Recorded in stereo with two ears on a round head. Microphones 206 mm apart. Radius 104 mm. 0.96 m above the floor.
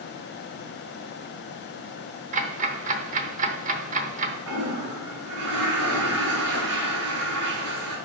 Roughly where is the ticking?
Right.